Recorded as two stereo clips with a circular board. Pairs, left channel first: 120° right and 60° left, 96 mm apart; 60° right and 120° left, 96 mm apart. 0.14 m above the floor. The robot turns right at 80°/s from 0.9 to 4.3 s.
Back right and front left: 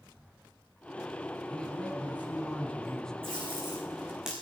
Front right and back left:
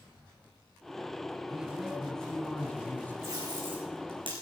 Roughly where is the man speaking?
Behind.